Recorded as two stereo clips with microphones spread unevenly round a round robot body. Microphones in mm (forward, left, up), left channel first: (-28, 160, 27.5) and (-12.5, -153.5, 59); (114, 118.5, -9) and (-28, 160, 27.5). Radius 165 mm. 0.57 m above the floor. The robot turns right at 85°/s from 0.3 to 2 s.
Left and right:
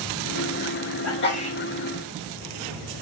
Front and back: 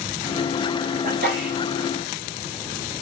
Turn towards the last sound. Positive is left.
turn(degrees=-150)